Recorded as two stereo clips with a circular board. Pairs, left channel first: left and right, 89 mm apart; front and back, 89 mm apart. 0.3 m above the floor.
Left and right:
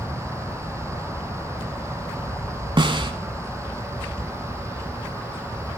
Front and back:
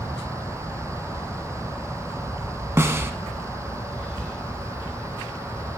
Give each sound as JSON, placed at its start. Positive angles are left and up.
{"t": 2.8, "sound": "a snare drum", "azimuth_deg": -115, "distance_m": 1.0}